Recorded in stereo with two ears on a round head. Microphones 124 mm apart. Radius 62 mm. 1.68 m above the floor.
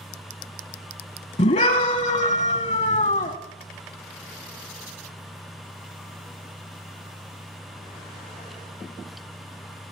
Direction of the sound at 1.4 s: 50° left (ahead or behind).